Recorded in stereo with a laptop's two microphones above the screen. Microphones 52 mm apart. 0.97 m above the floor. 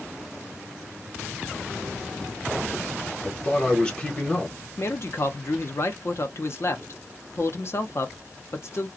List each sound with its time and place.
3.2 s a man speaking: 15° left (ahead or behind), 0.9 m
4.8 s a man speaking: 50° left (ahead or behind), 0.7 m